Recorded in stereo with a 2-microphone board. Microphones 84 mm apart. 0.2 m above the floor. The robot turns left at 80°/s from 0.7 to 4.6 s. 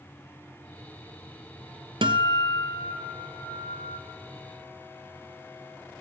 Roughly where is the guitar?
Right.